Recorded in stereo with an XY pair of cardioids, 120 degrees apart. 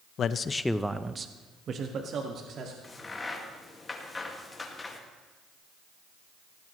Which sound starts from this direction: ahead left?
A man speaking, at 0.2 s.